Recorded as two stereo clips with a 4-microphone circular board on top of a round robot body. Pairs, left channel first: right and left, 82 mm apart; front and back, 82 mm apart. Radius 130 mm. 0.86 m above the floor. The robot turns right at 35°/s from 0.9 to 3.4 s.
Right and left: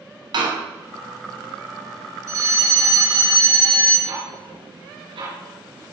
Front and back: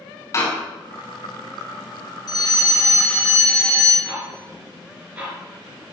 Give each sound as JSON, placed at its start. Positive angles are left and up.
{"t": 0.3, "sound": "a door slam", "azimuth_deg": 55, "distance_m": 6.0}
{"t": 2.3, "sound": "a fire alarm", "azimuth_deg": 45, "distance_m": 7.0}
{"t": 4.0, "sound": "ticking", "azimuth_deg": 110, "distance_m": 5.5}